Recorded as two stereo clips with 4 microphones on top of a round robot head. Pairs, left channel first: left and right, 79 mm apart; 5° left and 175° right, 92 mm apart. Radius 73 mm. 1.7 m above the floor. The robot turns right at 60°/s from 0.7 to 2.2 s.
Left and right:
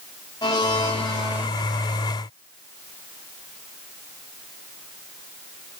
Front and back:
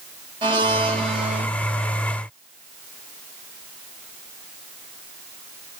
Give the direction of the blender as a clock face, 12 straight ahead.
7 o'clock.